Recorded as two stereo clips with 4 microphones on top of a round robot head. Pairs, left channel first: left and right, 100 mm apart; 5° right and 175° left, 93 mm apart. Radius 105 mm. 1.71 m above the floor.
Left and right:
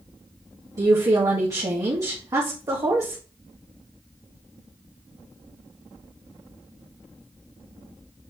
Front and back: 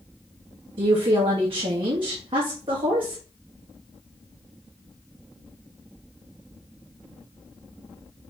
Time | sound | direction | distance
0.8 | a woman speaking | 145° right | 1.6 m